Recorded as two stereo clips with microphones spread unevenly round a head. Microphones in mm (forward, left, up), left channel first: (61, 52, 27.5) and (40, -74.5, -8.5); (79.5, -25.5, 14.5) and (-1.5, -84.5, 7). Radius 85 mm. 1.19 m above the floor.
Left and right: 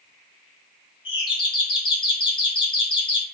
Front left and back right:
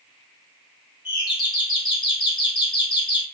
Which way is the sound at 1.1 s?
30° left.